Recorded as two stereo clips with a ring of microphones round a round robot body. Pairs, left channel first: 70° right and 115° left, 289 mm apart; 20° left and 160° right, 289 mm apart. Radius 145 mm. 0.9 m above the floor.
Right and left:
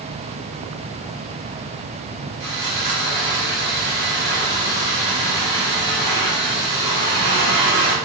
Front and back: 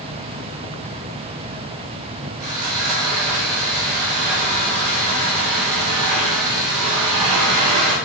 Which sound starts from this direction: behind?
Sawing, at 2.4 s.